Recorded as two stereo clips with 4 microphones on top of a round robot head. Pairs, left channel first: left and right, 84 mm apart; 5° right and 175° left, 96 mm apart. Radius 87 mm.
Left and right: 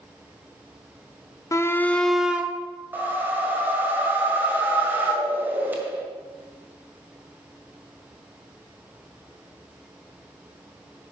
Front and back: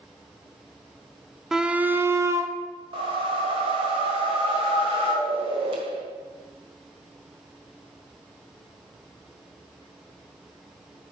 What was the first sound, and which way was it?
A shout, 95° left.